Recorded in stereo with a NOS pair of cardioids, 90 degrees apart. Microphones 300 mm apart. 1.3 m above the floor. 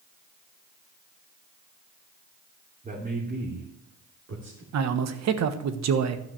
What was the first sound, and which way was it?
A man speaking, 25° right.